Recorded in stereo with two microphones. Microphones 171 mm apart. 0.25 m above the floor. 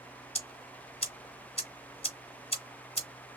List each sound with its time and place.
0.3 s ticking: 35° left (ahead or behind), 1.4 m